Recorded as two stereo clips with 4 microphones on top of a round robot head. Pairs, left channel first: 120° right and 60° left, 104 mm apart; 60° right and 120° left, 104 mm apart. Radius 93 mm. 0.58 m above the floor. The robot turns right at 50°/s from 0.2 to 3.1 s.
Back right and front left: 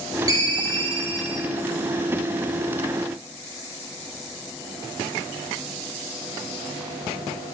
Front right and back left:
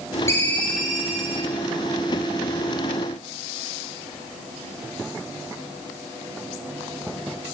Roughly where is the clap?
No clap in this recording.